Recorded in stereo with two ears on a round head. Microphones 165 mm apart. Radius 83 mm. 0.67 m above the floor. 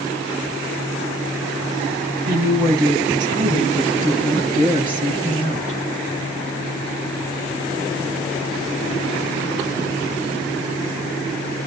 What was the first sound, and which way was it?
A woman speaking, 20° right (ahead or behind).